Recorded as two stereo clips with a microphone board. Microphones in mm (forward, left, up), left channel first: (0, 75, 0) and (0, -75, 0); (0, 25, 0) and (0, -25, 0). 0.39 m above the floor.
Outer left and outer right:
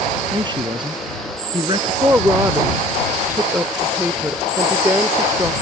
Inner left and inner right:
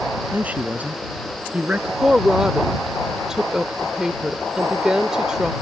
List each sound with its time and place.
0.3 s a man speaking: 35° right (ahead or behind)
2.0 s a woman speaking: 15° right (ahead or behind)